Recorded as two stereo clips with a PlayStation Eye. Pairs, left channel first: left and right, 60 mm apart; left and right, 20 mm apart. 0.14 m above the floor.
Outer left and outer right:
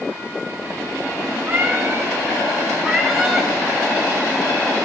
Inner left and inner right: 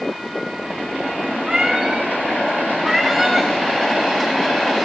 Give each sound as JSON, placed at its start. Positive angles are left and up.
{"t": 1.5, "sound": "a cat meowing", "side_deg": -35, "distance_m": 4.0}